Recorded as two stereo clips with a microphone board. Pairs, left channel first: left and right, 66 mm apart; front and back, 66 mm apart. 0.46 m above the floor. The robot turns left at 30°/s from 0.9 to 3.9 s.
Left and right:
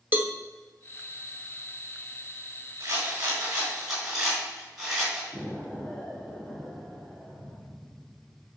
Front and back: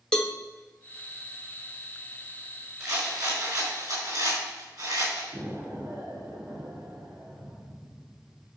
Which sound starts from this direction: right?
A cowbell, at 0.1 s.